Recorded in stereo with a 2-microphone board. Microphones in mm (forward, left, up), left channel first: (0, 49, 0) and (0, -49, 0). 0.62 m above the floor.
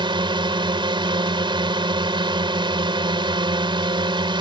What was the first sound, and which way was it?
A drone, 55° right (ahead or behind).